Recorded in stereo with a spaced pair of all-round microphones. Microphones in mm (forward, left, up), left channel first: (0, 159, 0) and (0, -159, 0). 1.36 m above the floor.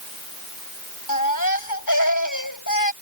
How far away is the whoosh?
No whoosh in this recording.